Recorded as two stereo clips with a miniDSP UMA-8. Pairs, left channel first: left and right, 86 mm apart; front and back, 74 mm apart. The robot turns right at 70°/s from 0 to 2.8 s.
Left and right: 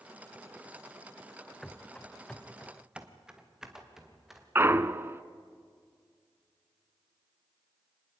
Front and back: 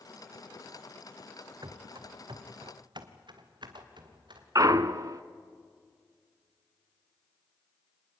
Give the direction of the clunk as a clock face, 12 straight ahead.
5 o'clock.